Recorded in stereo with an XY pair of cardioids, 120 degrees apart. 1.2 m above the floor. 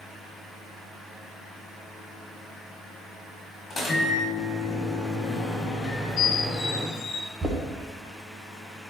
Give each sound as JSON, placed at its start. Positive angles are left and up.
{"t": 3.7, "sound": "a microwave", "azimuth_deg": 30, "distance_m": 1.8}
{"t": 5.8, "sound": "a squeak", "azimuth_deg": 65, "distance_m": 0.9}
{"t": 7.4, "sound": "knocking", "azimuth_deg": -30, "distance_m": 0.8}